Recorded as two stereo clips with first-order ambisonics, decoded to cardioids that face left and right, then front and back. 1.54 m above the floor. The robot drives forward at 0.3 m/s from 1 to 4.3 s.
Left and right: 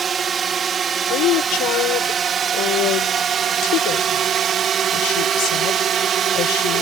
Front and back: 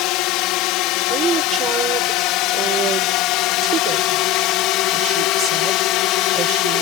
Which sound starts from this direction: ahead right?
A drone, at 0.0 s.